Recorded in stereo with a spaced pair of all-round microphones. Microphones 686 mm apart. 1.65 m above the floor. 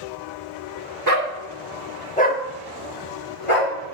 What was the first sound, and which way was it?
A dog barking, 25° right (ahead or behind).